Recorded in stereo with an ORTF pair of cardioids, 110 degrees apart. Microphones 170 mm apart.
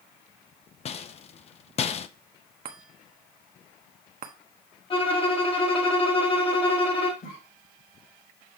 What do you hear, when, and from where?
0.8 s a rattle: 40° left, 0.7 m
2.6 s a chime: 60° right, 1.3 m
4.9 s a violin: 30° left, 2 m
7.2 s a cough: 55° left, 5 m